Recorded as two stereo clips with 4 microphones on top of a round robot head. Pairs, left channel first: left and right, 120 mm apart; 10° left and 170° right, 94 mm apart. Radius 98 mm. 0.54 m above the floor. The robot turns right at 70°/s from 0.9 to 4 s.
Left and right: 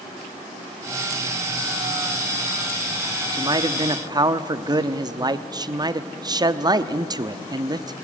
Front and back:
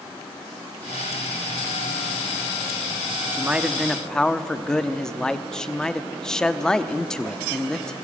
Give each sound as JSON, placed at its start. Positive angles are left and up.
{"t": 3.3, "sound": "a man speaking", "azimuth_deg": -115, "distance_m": 0.9}